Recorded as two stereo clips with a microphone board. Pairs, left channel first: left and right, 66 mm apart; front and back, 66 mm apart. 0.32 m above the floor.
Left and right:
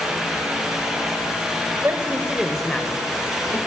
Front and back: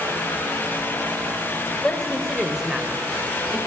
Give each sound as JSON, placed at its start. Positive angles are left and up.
{"t": 1.8, "sound": "a man speaking", "azimuth_deg": -70, "distance_m": 1.2}